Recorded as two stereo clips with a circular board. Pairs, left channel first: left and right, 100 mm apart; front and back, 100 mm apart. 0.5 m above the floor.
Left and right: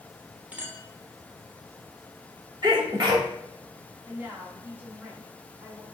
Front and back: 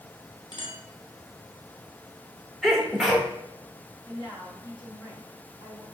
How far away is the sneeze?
About 1.2 m.